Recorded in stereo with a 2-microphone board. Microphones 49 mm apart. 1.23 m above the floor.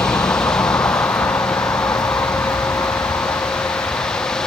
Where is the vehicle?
80° left; by 4.5 s 75° left (ahead or behind).